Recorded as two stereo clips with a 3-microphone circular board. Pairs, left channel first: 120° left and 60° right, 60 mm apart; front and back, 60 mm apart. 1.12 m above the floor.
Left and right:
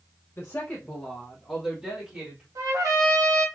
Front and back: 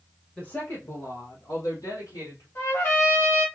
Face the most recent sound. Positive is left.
turn(degrees=-35)